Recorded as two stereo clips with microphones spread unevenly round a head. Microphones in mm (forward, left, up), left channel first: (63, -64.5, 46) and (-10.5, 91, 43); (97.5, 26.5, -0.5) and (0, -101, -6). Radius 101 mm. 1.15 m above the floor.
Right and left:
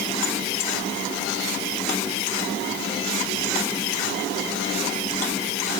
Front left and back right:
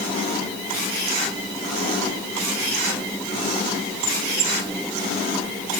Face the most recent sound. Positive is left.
No sound to turn to.